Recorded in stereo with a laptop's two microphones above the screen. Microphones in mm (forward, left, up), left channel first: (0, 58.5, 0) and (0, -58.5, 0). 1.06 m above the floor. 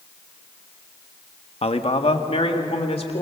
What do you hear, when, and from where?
1.6 s a man speaking: 60° left (ahead or behind), 1.1 m